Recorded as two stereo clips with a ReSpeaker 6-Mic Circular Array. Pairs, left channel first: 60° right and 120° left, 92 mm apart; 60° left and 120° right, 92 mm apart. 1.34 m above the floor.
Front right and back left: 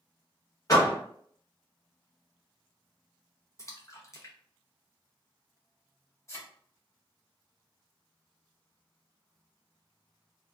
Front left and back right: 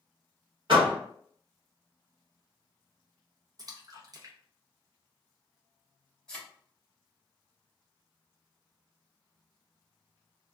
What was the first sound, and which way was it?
A door slam, 110° right.